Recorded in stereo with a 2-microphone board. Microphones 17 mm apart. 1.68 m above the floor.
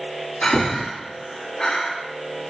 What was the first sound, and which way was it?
Breathing, 80° left.